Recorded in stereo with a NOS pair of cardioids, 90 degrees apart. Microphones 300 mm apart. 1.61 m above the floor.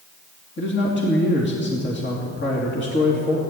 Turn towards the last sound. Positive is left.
turn(degrees=40)